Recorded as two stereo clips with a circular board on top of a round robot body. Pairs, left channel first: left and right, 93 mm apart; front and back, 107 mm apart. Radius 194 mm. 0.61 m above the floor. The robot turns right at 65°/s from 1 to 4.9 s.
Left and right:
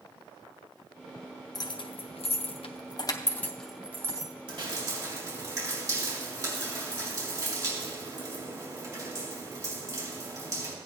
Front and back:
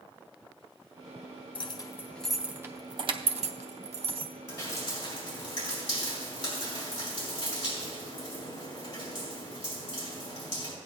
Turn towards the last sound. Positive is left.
turn(degrees=-35)